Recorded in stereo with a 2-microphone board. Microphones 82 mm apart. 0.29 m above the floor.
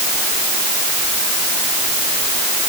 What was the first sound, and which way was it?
Only background noise.